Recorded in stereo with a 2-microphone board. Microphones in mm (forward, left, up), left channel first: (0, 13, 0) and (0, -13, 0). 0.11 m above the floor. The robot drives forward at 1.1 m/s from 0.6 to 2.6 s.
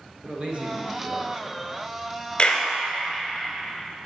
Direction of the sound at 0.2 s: 40° right (ahead or behind).